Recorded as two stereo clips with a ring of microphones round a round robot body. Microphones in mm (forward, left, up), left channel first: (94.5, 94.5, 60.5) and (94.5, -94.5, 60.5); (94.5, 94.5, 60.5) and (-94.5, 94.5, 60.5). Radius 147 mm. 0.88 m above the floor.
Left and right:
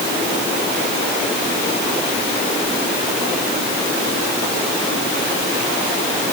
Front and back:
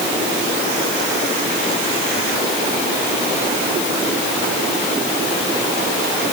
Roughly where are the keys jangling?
No keys jangling in this recording.